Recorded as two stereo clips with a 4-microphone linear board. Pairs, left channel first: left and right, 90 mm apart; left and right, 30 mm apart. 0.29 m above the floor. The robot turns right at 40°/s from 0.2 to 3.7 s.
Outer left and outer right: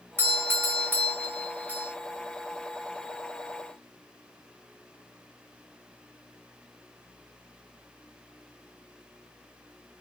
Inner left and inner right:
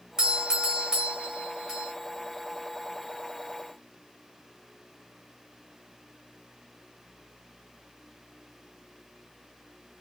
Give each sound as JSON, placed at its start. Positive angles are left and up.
{"t": 0.2, "sound": "a doorbell", "side_deg": -25, "distance_m": 1.7}